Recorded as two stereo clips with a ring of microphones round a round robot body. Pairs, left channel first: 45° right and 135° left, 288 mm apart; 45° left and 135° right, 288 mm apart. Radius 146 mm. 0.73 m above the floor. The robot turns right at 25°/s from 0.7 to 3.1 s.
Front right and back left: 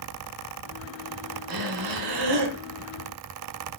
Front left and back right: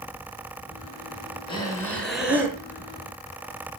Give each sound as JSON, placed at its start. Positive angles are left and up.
{"t": 1.5, "sound": "breathing", "azimuth_deg": 120, "distance_m": 3.0}